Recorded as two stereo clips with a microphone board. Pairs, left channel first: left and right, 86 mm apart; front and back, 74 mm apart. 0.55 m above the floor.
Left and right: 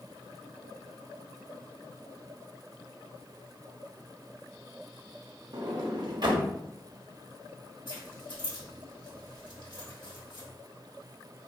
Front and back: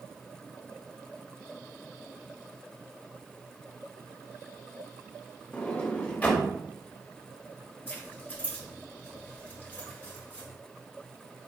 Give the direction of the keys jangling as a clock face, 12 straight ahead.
10 o'clock.